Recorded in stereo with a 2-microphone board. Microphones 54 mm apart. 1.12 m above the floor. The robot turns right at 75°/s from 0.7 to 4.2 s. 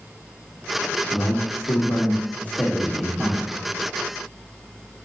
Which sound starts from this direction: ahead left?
A man speaking, at 1.1 s.